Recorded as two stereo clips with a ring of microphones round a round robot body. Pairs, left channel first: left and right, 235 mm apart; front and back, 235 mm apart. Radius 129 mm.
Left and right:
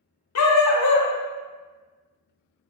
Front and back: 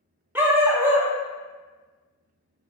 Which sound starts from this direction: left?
A dog barking, at 0.3 s.